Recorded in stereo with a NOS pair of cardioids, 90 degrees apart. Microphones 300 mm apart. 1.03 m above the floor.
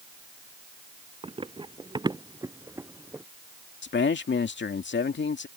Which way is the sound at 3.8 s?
40° left.